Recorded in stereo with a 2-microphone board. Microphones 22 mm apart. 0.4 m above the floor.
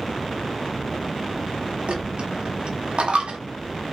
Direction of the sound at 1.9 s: 70° right (ahead or behind).